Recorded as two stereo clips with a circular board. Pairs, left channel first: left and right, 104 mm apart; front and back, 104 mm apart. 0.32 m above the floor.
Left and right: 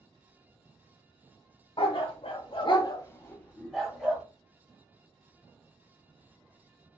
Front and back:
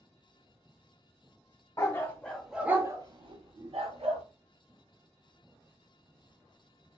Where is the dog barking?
60° left, 0.9 m; by 4.2 s 175° right, 1.2 m.